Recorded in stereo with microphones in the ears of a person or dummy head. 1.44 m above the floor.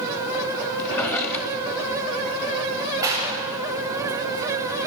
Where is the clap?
15° right (ahead or behind), 8 m.